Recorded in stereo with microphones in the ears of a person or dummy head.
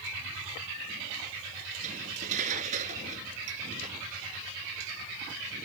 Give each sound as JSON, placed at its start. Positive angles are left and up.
{"t": 1.8, "sound": "cutlery clinking", "side_deg": -45}